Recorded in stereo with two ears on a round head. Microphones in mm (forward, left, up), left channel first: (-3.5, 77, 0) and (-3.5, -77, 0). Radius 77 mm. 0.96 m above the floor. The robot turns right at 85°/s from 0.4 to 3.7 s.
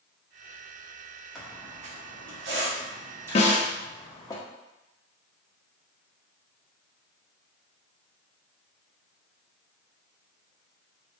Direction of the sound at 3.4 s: 40° left (ahead or behind).